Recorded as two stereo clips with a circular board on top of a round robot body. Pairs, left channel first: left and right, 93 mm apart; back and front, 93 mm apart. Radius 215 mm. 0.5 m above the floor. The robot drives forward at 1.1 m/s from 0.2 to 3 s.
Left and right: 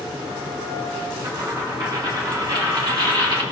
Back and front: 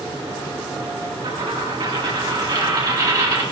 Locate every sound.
1.2 s a dropped coin: 35° right, 4.5 m; by 3.4 s 55° right, 3 m